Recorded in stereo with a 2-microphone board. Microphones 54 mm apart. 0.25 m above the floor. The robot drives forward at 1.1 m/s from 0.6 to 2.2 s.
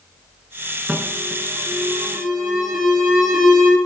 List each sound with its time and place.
0.9 s an alarm: 10° right (ahead or behind), 1.5 m; by 3.8 s 5° right (ahead or behind), 3 m